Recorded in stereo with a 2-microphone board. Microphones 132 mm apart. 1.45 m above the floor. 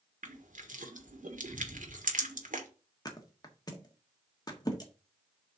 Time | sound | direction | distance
0.2 | crushing | 90° right | 1.5 m
3.0 | a thud | 30° left (ahead or behind) | 1.4 m